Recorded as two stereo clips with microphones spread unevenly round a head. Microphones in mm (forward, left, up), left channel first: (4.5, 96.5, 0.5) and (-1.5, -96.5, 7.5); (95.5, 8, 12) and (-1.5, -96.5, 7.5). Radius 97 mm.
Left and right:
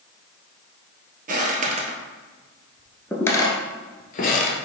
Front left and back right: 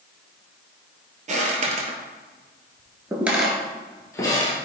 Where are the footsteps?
120° right, 1.7 m; by 4.6 s 100° left, 1.5 m.